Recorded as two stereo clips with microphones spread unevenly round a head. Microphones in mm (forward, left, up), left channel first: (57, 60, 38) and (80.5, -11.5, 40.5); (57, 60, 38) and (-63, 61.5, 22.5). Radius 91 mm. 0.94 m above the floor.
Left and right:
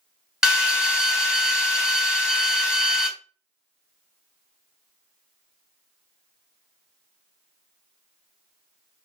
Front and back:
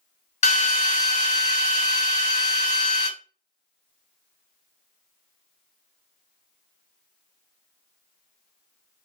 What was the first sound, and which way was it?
A drill, 15° left.